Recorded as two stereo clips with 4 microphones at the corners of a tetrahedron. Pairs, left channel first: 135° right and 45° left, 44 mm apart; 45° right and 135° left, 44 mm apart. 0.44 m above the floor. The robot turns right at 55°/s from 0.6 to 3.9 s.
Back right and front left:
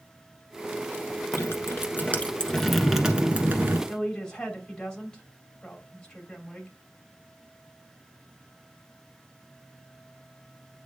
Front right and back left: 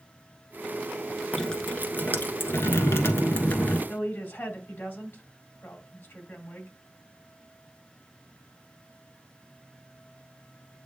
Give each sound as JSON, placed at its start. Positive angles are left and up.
{"t": 1.3, "sound": "dripping", "azimuth_deg": -125, "distance_m": 1.2}
{"t": 3.9, "sound": "a woman speaking", "azimuth_deg": -65, "distance_m": 2.5}